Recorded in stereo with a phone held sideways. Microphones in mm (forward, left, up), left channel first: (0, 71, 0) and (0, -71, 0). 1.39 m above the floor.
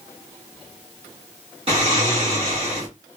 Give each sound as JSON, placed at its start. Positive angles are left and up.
{"t": 1.7, "sound": "snoring", "side_deg": -45, "distance_m": 1.8}